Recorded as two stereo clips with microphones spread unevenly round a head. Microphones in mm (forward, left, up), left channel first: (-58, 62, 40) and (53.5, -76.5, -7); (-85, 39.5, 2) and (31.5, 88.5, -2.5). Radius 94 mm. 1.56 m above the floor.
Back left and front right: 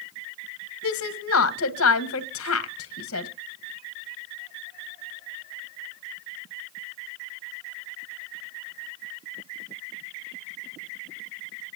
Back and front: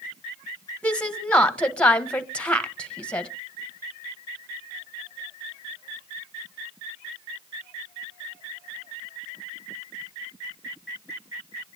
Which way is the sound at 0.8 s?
120° left.